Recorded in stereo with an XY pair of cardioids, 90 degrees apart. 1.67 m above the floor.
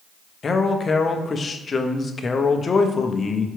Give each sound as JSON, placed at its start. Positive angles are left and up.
{"t": 0.4, "sound": "a man speaking", "azimuth_deg": 45, "distance_m": 0.6}